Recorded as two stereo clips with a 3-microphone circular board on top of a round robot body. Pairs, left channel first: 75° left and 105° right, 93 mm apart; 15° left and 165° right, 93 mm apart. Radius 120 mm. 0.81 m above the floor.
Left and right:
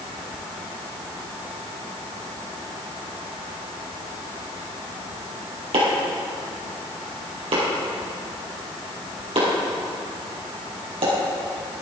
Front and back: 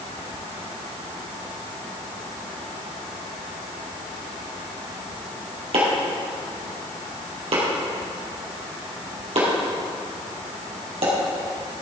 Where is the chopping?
140° right, 4 m.